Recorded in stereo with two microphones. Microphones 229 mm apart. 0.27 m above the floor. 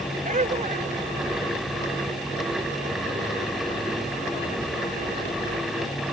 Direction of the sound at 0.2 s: 35° right (ahead or behind).